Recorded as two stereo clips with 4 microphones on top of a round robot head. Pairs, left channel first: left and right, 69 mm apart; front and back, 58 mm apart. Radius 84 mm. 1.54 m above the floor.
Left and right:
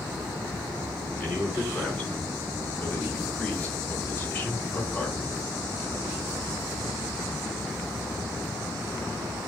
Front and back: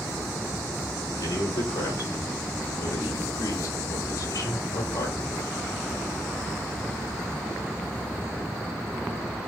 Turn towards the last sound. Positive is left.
turn(degrees=20)